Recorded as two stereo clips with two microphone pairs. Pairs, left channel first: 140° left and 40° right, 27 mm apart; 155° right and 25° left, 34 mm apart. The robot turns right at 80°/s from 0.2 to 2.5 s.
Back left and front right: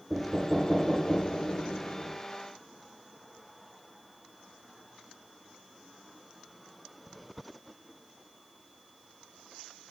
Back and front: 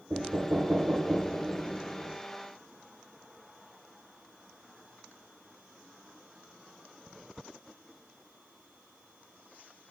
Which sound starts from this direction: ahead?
Knocking, at 0.1 s.